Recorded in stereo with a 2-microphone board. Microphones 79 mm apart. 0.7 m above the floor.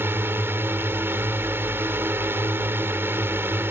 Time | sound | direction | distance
0.0 | a drone | 30° right (ahead or behind) | ?